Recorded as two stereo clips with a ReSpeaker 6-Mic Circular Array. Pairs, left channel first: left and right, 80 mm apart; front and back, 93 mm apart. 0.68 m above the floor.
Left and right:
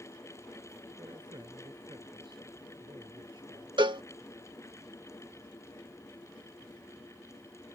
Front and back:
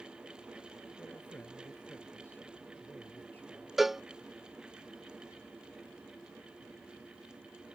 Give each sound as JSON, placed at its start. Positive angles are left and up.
{"t": 1.0, "sound": "a man speaking", "azimuth_deg": -70}
{"t": 3.8, "sound": "a cowbell", "azimuth_deg": -95}